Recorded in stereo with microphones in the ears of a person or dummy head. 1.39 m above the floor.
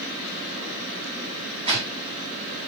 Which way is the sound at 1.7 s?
35° right (ahead or behind).